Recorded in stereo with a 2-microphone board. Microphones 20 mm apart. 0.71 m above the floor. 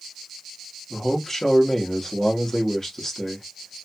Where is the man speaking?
25° left (ahead or behind), 1.1 m.